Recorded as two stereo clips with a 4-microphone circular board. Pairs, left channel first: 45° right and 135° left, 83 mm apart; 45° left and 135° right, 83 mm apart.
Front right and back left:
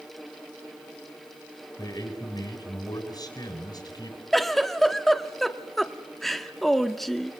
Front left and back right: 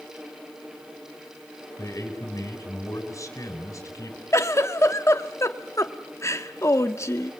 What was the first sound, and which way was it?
A man speaking, 5° right.